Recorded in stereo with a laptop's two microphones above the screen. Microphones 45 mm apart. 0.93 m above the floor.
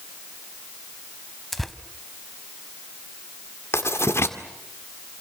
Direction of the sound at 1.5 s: Centre (ahead or behind).